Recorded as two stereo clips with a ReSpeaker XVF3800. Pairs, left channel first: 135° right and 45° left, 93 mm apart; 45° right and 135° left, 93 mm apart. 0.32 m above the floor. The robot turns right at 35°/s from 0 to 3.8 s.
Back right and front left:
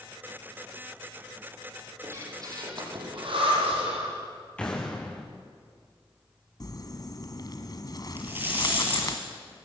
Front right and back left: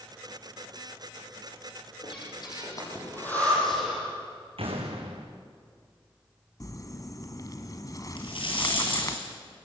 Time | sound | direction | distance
2.0 | breathing | 20° right | 8.5 m
4.6 | an explosion | 150° left | 5 m
6.6 | crumpling | 95° right | 1.6 m
8.2 | a rattle | 20° right | 8.5 m